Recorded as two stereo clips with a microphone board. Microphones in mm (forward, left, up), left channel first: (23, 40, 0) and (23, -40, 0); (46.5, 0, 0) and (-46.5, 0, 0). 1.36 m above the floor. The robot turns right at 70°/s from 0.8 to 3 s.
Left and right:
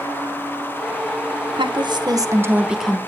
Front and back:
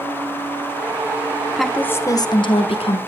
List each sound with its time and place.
1.6 s a woman speaking: 90° right, 1.3 m; by 3.0 s 10° left, 1.3 m